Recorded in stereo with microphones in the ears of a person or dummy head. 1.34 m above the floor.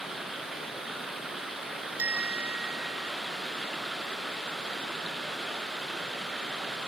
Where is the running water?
5° right (ahead or behind).